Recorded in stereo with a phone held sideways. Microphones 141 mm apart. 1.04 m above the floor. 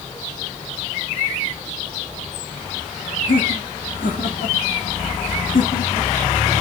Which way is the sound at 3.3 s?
75° left (ahead or behind).